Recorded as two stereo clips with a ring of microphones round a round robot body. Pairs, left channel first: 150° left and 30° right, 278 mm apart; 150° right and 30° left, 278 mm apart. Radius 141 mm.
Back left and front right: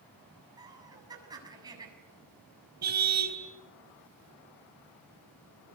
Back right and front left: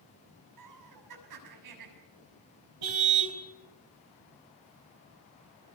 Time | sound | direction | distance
0.6 | laughter | 45° left | 7.5 m
2.8 | a car horn | 25° left | 3.5 m